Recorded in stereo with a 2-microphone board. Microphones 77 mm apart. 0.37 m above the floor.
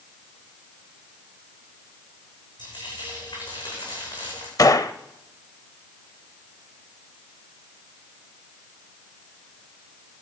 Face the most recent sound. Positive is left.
turn(degrees=50)  # may be behind; listen again after turning